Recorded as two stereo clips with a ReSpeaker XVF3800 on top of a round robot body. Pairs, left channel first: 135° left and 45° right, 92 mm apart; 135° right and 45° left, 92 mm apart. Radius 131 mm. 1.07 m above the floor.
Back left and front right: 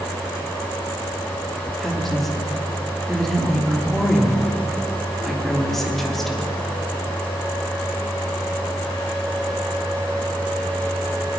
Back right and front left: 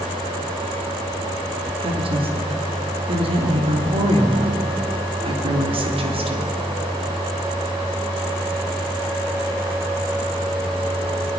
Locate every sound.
1.8 s a woman speaking: 50° left, 3 m